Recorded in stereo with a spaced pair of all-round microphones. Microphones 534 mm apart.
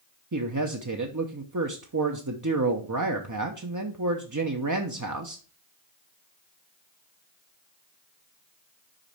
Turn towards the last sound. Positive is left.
turn(degrees=-35)  # may be behind; listen again after turning